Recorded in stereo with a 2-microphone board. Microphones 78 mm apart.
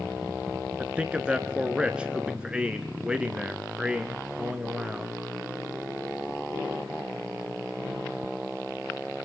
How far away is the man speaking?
About 1.1 m.